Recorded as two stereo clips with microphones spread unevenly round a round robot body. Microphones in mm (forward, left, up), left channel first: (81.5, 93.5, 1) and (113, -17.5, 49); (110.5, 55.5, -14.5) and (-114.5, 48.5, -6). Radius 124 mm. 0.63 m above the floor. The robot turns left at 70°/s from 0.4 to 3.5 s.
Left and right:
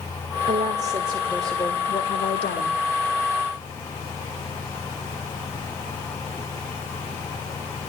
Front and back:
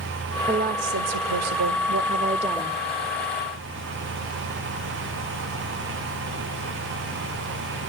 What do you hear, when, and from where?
0.5 s a woman speaking: 105° right, 1.8 m; by 2.8 s 90° left, 1.8 m